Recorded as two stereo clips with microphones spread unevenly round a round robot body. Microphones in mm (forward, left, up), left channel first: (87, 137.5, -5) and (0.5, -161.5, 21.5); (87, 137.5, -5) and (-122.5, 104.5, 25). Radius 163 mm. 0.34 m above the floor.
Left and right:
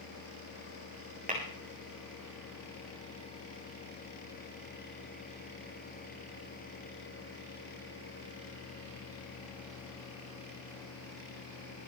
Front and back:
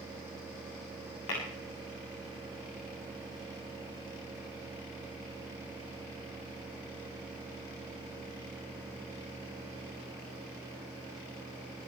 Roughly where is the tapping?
Ahead right.